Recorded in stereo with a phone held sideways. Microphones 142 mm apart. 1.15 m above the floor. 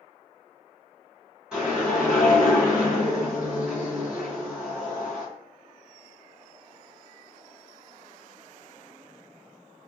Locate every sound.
1.5 s a whoosh: 5° right (ahead or behind), 1.6 m